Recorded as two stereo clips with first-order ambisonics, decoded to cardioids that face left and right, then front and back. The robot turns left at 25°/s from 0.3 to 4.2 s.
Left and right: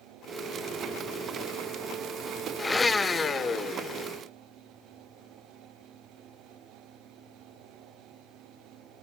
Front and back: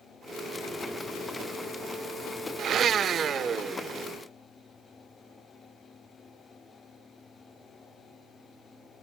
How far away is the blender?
About 0.6 m.